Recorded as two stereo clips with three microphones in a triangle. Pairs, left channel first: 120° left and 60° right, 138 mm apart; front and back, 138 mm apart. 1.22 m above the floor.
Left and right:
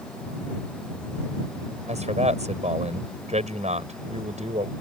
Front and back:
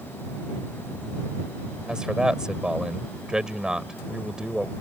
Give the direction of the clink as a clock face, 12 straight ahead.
No clink in this recording.